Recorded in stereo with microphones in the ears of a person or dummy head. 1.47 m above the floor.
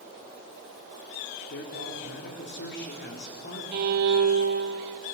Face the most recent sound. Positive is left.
turn(degrees=-55)  # may be behind; listen again after turning